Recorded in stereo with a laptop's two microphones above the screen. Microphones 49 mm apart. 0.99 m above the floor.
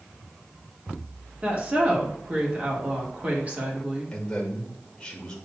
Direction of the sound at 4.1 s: 15° left (ahead or behind).